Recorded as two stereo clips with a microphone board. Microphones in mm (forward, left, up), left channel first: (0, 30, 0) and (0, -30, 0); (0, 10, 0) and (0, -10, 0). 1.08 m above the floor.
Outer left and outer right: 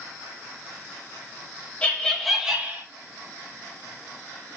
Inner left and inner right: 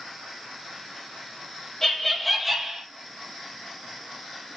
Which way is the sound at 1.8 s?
20° left (ahead or behind).